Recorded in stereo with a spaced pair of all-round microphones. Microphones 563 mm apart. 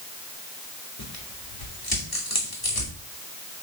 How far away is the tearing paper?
About 2.5 m.